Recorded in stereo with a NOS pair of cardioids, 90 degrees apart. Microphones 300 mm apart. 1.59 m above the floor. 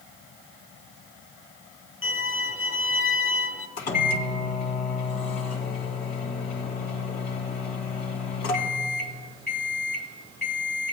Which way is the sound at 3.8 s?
35° left.